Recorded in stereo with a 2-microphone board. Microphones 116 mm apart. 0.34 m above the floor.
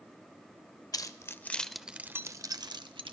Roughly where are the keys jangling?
Left.